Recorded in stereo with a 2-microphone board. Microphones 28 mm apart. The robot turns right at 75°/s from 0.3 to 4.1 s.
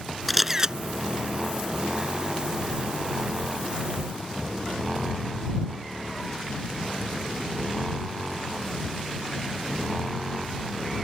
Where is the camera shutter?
Straight behind; by 0.8 s 145° right.